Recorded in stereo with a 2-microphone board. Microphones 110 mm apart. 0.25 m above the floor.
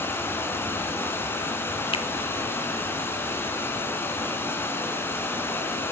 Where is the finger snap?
55° left (ahead or behind), 1.4 m.